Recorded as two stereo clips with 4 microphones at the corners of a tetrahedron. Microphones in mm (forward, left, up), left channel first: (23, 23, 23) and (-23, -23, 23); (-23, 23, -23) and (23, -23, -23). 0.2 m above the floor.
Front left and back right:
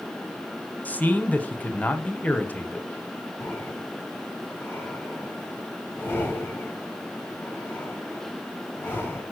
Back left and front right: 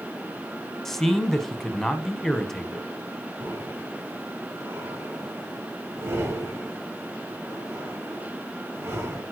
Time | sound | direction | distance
0.8 | a man speaking | 60° left | 1.2 m
3.4 | breathing | 10° right | 2.5 m